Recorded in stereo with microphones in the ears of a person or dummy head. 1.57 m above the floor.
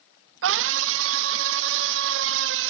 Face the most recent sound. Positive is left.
turn(degrees=-65)  # may be behind; listen again after turning